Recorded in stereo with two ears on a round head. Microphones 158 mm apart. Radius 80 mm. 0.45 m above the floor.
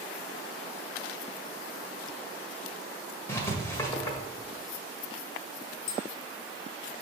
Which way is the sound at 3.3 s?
15° left (ahead or behind).